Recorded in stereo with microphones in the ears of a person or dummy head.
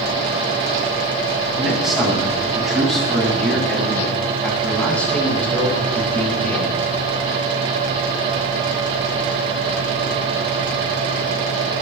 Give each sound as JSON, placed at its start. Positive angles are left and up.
{"t": 1.6, "sound": "a man speaking", "side_deg": -5, "distance_m": 6.5}